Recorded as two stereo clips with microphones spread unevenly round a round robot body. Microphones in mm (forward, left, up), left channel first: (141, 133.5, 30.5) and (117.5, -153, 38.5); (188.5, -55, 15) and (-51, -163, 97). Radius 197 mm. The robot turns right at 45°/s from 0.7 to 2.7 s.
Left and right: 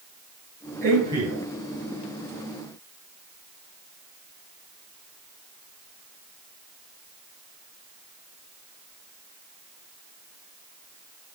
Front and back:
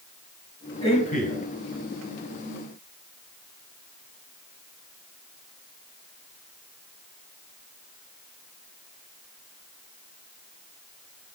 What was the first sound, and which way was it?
A man speaking, 40° right.